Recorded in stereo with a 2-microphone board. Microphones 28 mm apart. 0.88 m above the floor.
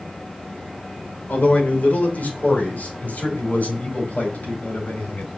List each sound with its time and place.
1.3 s a man speaking: 65° left (ahead or behind), 2.5 m